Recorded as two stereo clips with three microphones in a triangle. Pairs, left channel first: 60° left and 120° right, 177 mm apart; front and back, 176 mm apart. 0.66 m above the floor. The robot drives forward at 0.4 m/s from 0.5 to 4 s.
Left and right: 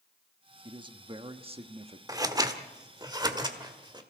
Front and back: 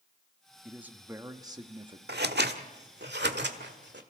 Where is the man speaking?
100° right, 1.1 m; by 2.0 s 140° right, 1.3 m.